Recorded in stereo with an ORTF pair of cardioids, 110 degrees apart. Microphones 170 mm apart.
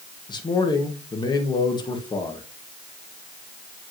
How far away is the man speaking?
About 1.5 m.